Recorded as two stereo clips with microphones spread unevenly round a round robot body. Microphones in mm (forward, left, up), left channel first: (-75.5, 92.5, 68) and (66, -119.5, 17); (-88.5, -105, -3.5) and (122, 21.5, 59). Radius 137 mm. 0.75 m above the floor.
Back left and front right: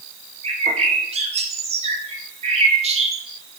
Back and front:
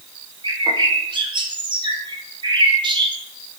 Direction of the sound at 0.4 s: 50° right.